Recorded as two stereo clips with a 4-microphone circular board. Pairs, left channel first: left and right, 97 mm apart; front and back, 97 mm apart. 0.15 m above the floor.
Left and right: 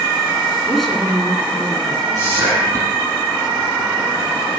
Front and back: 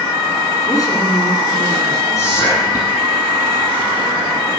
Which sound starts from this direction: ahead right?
Whispering, at 2.1 s.